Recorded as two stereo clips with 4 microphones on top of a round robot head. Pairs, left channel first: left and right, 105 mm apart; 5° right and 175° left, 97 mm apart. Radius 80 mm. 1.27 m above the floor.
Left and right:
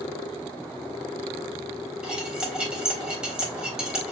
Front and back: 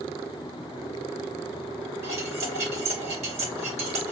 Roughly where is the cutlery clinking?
Behind.